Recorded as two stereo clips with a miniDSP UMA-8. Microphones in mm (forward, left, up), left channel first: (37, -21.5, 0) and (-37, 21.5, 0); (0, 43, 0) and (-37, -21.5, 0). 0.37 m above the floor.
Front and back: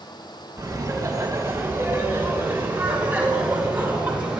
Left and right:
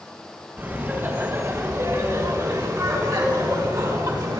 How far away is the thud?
I don't hear a thud.